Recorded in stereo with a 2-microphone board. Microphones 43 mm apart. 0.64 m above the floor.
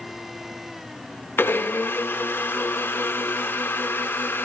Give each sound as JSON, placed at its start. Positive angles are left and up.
{"t": 1.4, "sound": "a blender", "side_deg": 65, "distance_m": 1.7}